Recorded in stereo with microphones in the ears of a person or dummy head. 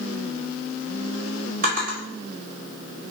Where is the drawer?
50° right (ahead or behind), 1.9 m.